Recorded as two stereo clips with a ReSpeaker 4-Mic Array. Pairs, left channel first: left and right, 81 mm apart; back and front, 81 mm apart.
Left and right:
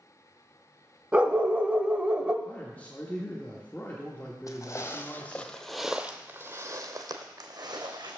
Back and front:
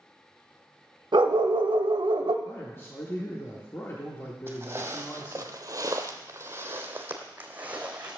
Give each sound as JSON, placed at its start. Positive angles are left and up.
{"t": 1.1, "sound": "a dog barking", "azimuth_deg": -15, "distance_m": 0.6}
{"t": 2.5, "sound": "a man speaking", "azimuth_deg": 145, "distance_m": 1.0}
{"t": 4.5, "sound": "footsteps", "azimuth_deg": 55, "distance_m": 1.0}